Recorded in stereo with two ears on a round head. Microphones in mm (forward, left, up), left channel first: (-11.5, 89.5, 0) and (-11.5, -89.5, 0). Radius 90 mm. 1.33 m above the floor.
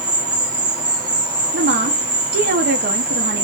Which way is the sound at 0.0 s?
20° right (ahead or behind).